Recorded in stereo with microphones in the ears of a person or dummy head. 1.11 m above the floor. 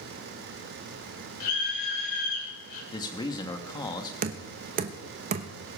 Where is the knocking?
50° right (ahead or behind), 1.0 m.